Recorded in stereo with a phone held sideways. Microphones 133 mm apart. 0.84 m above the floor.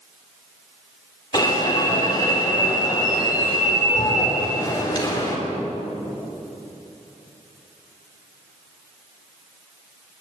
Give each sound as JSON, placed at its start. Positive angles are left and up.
{"t": 1.3, "sound": "an alarm", "side_deg": 30, "distance_m": 4.0}